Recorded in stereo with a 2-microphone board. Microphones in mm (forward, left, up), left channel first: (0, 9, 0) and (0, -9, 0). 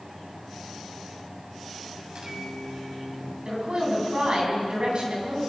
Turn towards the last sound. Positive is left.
turn(degrees=-55)  # may be behind; listen again after turning